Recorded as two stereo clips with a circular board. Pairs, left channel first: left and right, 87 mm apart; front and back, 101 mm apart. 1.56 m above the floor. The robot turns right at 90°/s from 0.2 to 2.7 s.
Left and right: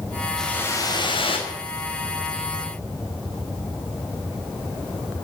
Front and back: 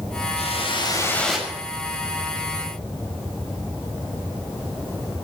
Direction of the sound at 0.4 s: 5° left.